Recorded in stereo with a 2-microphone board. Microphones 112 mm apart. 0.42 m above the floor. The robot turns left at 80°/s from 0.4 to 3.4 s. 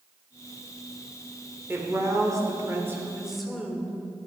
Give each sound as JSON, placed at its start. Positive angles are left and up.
{"t": 1.7, "sound": "a woman speaking", "azimuth_deg": -45, "distance_m": 1.4}